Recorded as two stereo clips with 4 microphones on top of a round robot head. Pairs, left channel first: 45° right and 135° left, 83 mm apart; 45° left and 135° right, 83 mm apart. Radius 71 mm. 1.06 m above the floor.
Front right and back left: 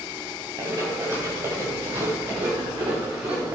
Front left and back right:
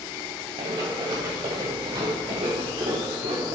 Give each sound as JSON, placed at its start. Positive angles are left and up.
{"t": 0.6, "sound": "running footsteps", "azimuth_deg": -170, "distance_m": 8.5}